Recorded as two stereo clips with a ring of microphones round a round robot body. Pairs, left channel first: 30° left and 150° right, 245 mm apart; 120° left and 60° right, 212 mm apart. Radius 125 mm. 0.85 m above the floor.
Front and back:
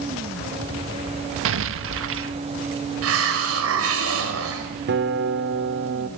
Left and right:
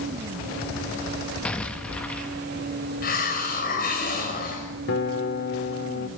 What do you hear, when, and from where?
1.4 s an explosion: 155° right, 1.3 m
3.0 s a hiss: 175° left, 5 m
4.9 s a guitar: 165° left, 2.0 m